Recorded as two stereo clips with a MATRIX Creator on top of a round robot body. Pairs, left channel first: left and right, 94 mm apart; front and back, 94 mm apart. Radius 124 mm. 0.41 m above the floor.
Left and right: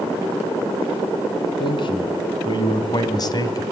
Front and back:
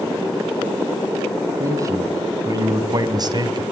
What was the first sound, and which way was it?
A man speaking, 125° left.